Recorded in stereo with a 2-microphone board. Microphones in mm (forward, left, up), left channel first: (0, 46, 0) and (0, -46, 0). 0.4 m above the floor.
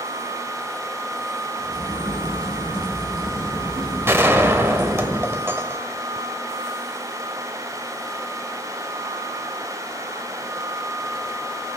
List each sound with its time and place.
1.6 s a crack: 65° right (ahead or behind), 7.5 m
4.1 s a gunshot: 30° right (ahead or behind), 1.0 m